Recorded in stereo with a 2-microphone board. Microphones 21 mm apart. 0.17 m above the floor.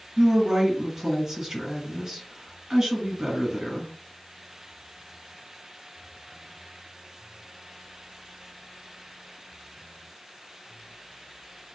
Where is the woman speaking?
30° right (ahead or behind), 1.6 m.